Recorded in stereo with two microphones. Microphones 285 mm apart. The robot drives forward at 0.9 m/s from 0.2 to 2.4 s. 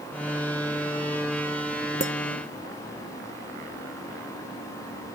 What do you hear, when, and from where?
2.0 s a clink: 30° left (ahead or behind)